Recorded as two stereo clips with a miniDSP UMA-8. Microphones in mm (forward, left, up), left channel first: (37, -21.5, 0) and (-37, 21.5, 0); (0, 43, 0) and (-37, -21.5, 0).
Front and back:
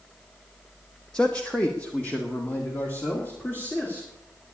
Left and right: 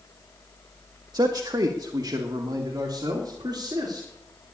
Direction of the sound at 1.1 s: 110° right.